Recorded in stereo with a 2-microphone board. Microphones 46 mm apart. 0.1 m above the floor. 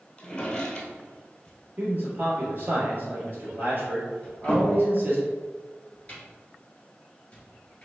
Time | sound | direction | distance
0.2 | a drawer | 15° left (ahead or behind) | 1.0 m
1.8 | a man speaking | 40° right (ahead or behind) | 2.0 m
4.2 | a cupboard door | 25° left (ahead or behind) | 2.0 m